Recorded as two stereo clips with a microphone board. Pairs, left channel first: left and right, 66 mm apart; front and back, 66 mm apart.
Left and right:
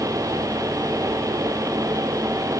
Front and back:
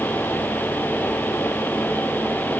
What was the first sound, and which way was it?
Only background noise.